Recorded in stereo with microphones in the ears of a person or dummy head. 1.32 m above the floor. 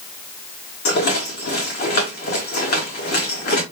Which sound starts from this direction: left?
A rattle, at 0.8 s.